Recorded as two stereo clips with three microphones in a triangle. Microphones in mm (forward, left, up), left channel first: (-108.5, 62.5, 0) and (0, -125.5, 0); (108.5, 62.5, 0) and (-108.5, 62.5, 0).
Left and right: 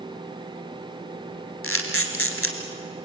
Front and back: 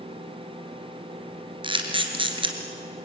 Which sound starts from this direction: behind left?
A camera shutter, at 1.6 s.